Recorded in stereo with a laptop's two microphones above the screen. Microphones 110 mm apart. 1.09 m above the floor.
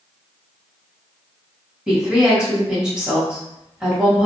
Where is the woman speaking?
5° right (ahead or behind), 1.6 m.